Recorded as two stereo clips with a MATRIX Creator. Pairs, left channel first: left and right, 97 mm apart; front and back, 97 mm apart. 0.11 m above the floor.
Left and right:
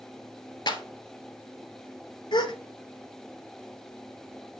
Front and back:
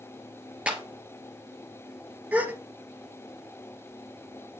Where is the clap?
105° left, 1.5 m.